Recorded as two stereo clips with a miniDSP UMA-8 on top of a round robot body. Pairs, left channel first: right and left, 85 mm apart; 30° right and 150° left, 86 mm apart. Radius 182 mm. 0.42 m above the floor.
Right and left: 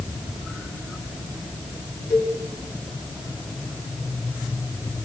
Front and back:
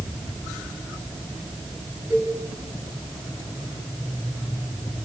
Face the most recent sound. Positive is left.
turn(degrees=-145)